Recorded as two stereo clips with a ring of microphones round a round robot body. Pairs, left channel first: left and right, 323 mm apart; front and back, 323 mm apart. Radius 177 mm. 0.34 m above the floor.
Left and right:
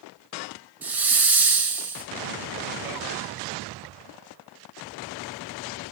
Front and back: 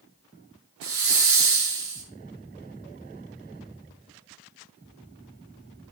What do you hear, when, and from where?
0.8 s a hiss: 175° right, 1.7 m